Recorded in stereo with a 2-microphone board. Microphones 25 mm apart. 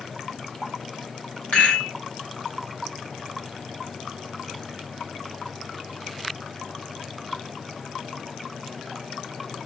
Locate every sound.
1.5 s a rattle: 85° left, 5 m